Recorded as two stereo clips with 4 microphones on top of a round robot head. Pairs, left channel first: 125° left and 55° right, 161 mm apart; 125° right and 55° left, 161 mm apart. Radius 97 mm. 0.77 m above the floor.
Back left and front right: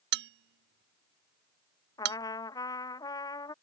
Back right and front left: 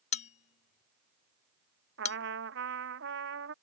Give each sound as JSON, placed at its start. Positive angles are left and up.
{"t": 0.1, "sound": "a bell", "azimuth_deg": -75}
{"t": 2.0, "sound": "a trumpet", "azimuth_deg": 60}